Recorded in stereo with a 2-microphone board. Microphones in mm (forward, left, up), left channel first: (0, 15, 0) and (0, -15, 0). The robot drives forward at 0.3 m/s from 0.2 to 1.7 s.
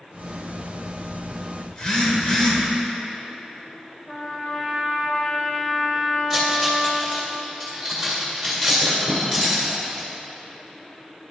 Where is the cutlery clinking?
Centre (ahead or behind), 2 m.